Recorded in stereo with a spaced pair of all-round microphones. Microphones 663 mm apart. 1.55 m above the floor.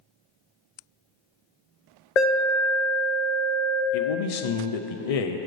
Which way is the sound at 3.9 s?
60° left (ahead or behind).